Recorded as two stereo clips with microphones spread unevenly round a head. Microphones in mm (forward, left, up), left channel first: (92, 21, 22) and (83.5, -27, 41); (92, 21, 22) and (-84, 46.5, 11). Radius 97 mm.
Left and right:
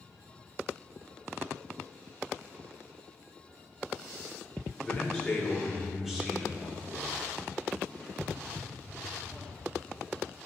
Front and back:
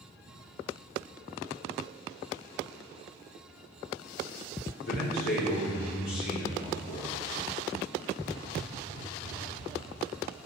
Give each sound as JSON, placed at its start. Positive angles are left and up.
{"t": 4.8, "sound": "a man speaking", "azimuth_deg": 5, "distance_m": 3.5}